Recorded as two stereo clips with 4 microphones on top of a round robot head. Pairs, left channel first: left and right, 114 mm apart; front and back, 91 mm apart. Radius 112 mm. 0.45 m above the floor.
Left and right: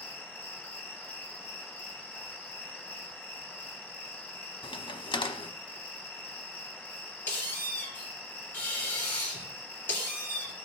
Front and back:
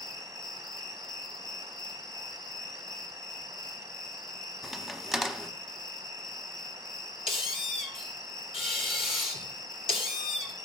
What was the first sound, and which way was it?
An insect, 15° left.